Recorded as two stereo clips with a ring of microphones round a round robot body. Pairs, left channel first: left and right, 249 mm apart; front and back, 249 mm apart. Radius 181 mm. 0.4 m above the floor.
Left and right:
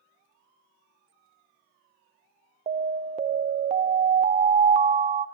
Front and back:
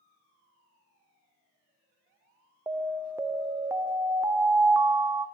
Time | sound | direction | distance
2.7 | an alarm | 110° right | 0.8 m